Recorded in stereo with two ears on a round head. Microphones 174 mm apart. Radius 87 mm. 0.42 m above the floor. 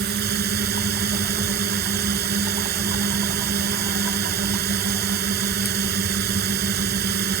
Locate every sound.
0.0 s a drone: 55° right (ahead or behind)